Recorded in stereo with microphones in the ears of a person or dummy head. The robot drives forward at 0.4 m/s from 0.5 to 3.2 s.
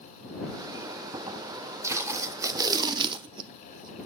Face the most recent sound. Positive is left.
turn(degrees=-30)  # may be behind; listen again after turning